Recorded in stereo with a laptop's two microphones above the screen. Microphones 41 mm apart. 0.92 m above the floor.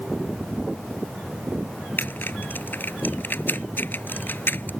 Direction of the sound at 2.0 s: 50° left (ahead or behind).